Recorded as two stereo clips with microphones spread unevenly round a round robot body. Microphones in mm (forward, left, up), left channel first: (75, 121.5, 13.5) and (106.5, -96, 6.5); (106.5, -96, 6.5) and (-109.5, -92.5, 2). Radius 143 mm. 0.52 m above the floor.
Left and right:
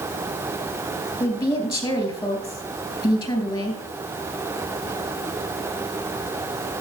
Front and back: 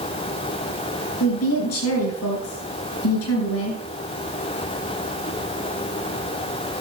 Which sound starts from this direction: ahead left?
A woman speaking, at 1.2 s.